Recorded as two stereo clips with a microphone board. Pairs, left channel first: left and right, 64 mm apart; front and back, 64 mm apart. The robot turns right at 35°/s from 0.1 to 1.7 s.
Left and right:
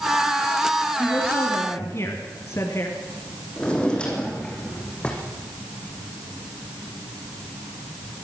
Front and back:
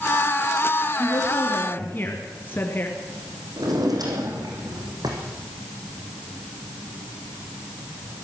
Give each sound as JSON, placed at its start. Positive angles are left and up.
{"t": 1.0, "sound": "a woman speaking", "azimuth_deg": 30, "distance_m": 3.0}
{"t": 3.6, "sound": "a drawer", "azimuth_deg": 165, "distance_m": 5.0}